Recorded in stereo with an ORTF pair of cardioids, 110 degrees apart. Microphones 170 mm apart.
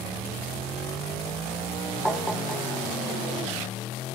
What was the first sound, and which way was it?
Tapping, straight ahead.